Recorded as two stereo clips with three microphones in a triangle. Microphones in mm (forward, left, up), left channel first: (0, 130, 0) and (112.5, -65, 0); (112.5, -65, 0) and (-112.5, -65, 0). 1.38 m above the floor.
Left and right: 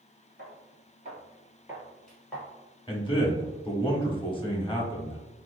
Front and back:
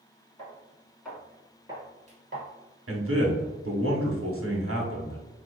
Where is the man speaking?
175° right, 1.1 m.